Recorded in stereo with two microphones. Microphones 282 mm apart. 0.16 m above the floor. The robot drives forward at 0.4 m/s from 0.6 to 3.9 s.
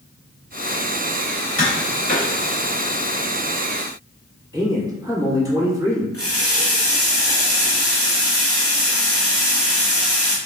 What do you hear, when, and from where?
1.6 s tapping: 30° right (ahead or behind), 1.7 m; by 2.3 s 35° right (ahead or behind), 1.7 m
4.5 s a man speaking: 15° right (ahead or behind), 1.4 m
6.1 s a running tap: 35° right (ahead or behind), 1.9 m